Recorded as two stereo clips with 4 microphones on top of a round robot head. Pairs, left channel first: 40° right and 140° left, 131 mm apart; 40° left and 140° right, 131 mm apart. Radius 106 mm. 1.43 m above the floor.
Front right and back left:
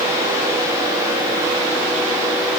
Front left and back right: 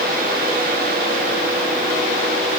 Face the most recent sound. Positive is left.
No sound to turn to.